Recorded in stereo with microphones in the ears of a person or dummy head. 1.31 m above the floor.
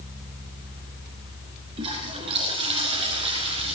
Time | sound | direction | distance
1.8 | a toilet flushing | 30° right (ahead or behind) | 3 m